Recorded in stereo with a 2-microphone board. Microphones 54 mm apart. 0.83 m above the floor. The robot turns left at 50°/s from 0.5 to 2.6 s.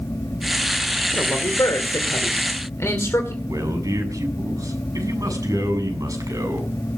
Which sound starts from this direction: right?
A man speaking, at 3.5 s.